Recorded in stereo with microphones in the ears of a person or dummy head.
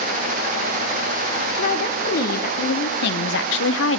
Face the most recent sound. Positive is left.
turn(degrees=65)  # may be behind; listen again after turning